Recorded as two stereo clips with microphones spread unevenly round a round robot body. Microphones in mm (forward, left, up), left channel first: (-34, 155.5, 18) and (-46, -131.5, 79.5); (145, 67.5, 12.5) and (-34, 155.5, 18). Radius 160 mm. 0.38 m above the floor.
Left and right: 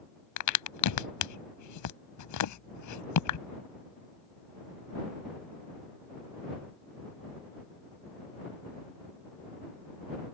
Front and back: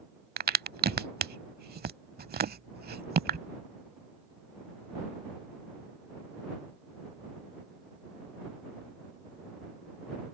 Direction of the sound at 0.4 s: 110° left.